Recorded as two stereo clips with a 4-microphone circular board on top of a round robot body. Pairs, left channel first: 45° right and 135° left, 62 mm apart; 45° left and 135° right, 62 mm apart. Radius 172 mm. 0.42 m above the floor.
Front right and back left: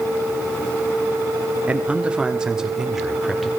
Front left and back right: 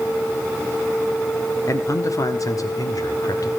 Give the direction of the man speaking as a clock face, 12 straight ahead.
10 o'clock.